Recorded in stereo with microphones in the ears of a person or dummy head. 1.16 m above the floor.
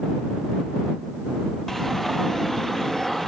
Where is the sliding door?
Centre (ahead or behind).